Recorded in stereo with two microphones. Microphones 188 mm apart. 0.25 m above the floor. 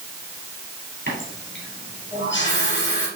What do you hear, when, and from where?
1.1 s a running tap: 75° left (ahead or behind), 4 m